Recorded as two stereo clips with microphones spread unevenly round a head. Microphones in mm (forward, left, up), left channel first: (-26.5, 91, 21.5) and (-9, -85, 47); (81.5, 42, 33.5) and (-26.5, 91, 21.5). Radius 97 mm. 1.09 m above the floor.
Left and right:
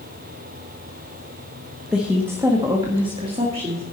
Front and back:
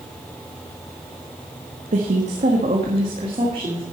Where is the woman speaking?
175° right, 1.4 m; by 3.8 s 140° right, 2.5 m.